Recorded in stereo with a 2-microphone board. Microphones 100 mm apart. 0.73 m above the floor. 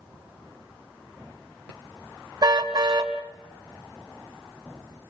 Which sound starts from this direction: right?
A car horn, at 2.4 s.